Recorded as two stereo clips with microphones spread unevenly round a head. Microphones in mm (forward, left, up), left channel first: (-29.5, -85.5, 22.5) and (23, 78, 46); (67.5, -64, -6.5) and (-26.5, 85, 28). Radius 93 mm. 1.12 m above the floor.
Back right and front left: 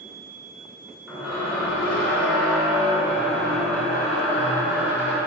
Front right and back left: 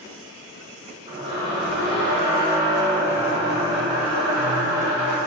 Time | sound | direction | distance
1.1 | a squeak | 150° left | 1.0 m